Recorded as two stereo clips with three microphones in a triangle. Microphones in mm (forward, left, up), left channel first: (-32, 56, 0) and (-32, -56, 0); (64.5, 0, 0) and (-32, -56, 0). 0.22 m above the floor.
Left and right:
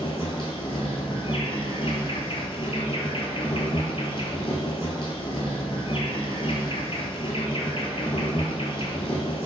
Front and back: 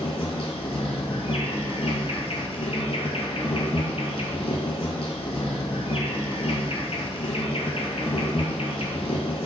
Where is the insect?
55° left, 0.8 m.